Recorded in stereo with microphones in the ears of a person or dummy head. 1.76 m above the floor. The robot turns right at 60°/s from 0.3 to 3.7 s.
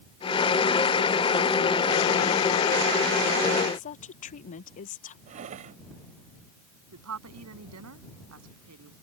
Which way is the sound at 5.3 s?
35° right (ahead or behind).